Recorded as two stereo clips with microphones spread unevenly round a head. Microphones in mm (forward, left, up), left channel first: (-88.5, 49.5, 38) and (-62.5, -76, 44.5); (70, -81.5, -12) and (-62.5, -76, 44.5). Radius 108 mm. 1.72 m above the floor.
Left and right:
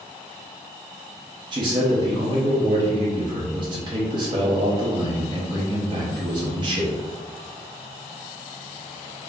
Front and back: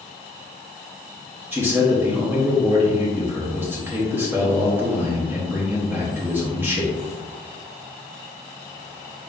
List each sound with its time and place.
1.5 s a man speaking: 125° right, 0.8 m